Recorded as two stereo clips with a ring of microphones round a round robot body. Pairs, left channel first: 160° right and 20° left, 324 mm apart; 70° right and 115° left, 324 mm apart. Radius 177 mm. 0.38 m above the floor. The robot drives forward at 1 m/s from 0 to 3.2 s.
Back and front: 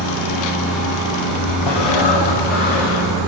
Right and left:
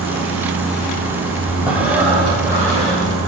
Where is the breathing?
160° right, 2.5 m; by 3.1 s 165° right, 4 m.